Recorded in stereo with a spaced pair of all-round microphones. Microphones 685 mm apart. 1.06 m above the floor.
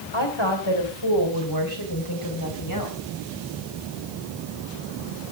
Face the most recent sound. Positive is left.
turn(degrees=30)  # may be behind; listen again after turning